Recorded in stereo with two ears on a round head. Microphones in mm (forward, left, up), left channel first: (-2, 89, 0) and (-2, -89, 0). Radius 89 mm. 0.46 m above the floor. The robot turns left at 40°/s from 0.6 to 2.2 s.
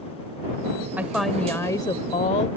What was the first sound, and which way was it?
A woman speaking, 170° right.